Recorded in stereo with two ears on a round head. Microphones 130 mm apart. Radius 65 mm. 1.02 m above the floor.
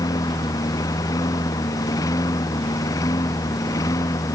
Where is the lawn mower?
25° left (ahead or behind).